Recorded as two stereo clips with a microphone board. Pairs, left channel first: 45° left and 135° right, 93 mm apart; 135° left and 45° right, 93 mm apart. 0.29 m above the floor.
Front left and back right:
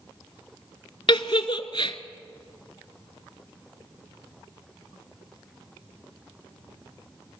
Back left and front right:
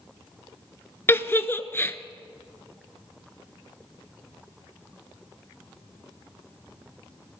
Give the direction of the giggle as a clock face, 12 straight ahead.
10 o'clock.